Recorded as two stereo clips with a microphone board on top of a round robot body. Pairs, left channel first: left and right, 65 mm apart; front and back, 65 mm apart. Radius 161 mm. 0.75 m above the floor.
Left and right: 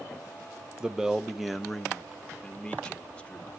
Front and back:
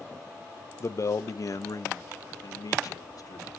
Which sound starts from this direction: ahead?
A man speaking, at 0.8 s.